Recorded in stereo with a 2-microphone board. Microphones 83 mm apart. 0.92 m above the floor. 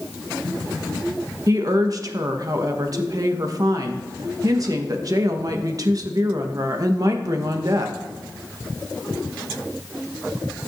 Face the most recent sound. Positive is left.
turn(degrees=-45)  # may be behind; listen again after turning